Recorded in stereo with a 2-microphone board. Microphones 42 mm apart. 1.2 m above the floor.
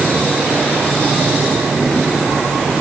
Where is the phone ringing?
No phone ringing in this recording.